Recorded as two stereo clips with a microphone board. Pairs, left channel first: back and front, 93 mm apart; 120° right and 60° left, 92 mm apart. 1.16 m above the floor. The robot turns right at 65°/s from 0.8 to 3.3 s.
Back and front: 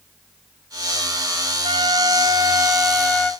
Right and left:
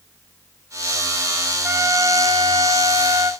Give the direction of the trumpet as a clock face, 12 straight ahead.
12 o'clock.